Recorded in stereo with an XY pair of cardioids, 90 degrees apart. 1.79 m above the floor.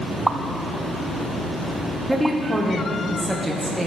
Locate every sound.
0.3 s a pop: 20° right, 0.7 m
2.1 s a woman speaking: straight ahead, 1.9 m